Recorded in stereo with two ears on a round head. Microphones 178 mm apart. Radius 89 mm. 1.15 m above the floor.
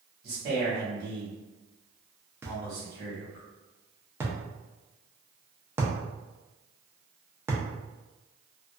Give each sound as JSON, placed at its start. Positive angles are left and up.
{"t": 0.2, "sound": "a man speaking", "side_deg": -55, "distance_m": 1.3}
{"t": 2.4, "sound": "a thud", "side_deg": -10, "distance_m": 0.6}